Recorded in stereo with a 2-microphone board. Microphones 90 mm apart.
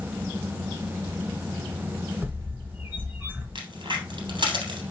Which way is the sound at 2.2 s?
20° right (ahead or behind).